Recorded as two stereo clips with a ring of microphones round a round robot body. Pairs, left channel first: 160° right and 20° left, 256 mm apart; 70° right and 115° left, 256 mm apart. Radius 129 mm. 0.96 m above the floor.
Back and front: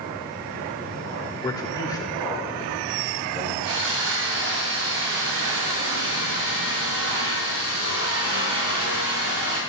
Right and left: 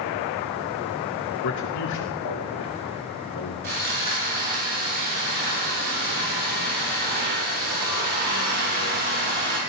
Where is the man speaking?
80° right, 3 m.